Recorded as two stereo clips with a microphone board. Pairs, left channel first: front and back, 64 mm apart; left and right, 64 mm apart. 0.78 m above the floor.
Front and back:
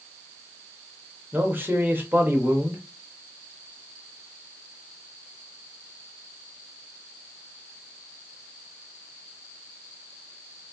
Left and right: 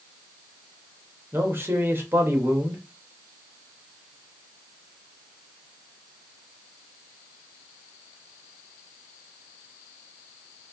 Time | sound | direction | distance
1.3 | a man speaking | 130° right | 1.2 m